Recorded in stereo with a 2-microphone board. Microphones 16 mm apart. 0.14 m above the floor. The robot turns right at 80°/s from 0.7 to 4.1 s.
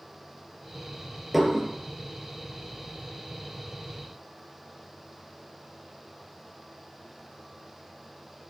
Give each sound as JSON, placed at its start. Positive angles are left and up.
{"t": 1.3, "sound": "dishes clattering", "side_deg": -10, "distance_m": 2.0}